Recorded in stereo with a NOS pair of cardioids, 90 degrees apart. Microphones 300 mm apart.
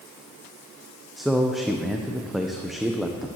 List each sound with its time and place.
1.2 s a man speaking: straight ahead, 0.5 m